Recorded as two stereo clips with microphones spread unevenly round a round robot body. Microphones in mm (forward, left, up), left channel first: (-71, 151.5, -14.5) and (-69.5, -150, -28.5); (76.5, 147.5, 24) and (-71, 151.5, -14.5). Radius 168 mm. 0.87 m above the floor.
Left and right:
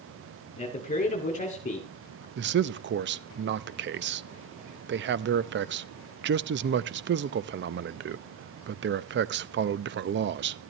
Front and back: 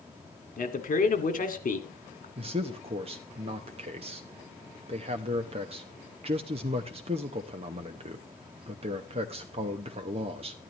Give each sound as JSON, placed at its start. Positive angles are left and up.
{"t": 0.6, "sound": "a man speaking", "azimuth_deg": 20, "distance_m": 2.0}
{"t": 2.4, "sound": "a man speaking", "azimuth_deg": -140, "distance_m": 0.6}